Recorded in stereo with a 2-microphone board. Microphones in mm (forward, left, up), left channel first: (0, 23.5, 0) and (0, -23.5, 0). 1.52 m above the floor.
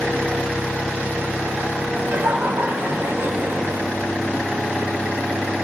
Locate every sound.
1.9 s laughter: 65° right (ahead or behind), 2.5 m; by 3.8 s 50° right (ahead or behind), 1.1 m